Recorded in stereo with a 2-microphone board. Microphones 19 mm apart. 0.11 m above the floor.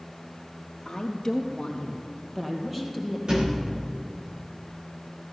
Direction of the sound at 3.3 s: 60° right (ahead or behind).